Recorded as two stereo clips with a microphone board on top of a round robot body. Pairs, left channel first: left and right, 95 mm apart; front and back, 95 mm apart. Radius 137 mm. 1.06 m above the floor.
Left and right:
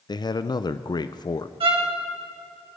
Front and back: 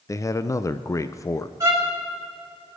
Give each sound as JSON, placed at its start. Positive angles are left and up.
{"t": 0.1, "sound": "a man speaking", "azimuth_deg": 55, "distance_m": 0.6}
{"t": 1.6, "sound": "a violin", "azimuth_deg": -120, "distance_m": 2.5}